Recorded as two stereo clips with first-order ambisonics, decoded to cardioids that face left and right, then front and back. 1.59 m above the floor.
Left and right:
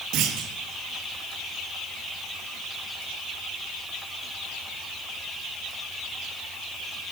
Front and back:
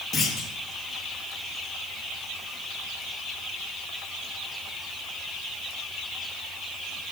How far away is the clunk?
About 3.5 m.